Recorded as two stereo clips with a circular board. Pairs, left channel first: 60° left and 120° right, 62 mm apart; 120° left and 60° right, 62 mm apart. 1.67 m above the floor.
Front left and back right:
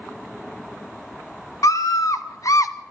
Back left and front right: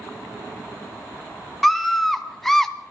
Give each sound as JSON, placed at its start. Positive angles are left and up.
{"t": 1.6, "sound": "a scream", "azimuth_deg": 30, "distance_m": 2.5}